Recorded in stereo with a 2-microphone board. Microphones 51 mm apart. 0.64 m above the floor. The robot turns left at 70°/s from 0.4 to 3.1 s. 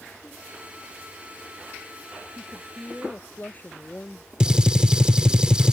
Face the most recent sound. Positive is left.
turn(degrees=-15)  # may be behind; listen again after turning